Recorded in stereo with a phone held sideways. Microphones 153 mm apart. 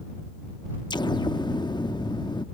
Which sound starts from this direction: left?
An explosion, at 0.9 s.